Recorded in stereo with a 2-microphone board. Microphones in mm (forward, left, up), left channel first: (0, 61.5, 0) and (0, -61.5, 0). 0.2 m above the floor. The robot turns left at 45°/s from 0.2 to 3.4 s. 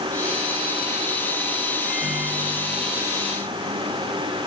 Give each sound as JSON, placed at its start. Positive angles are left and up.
{"t": 1.9, "sound": "a microwave", "azimuth_deg": 10, "distance_m": 4.5}